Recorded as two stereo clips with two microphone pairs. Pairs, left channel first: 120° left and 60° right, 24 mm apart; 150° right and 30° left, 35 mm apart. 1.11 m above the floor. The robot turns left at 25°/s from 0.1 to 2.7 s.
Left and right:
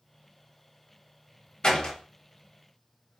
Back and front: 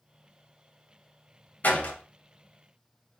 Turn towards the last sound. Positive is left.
turn(degrees=150)